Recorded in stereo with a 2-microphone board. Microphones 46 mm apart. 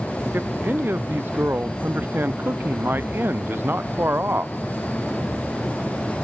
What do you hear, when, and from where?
0.3 s a man speaking: 50° right (ahead or behind)